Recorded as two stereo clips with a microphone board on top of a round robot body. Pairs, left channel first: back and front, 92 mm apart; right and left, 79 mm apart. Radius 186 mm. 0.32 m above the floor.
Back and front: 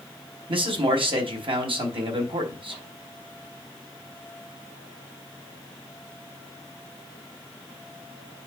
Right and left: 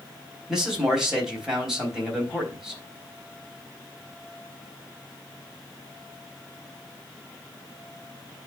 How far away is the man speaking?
About 4 m.